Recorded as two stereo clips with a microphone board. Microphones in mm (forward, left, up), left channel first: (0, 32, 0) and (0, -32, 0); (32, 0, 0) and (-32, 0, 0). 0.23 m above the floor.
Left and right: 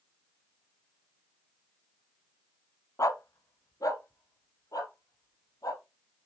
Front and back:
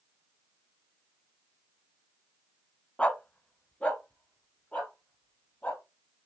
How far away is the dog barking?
About 0.6 m.